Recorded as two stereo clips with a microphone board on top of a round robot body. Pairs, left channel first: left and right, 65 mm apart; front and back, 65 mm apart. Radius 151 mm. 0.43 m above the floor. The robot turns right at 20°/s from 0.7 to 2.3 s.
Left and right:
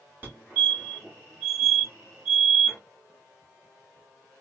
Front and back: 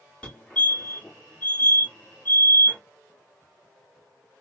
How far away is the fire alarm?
About 2.5 m.